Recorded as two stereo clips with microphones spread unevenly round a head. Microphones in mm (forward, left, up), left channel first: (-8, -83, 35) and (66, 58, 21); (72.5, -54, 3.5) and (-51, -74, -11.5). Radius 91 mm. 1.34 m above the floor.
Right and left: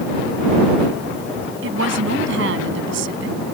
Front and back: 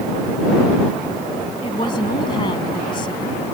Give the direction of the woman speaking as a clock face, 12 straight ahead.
10 o'clock.